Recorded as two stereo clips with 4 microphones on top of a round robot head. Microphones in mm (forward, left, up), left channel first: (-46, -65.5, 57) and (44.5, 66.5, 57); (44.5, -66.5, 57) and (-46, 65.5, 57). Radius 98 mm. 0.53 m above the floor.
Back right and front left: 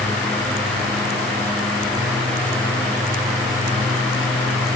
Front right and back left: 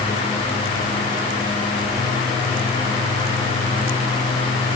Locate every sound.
Only background noise.